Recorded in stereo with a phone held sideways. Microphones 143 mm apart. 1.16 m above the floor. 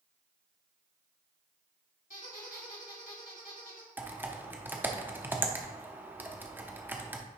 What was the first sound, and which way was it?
A squeak, 70° left (ahead or behind).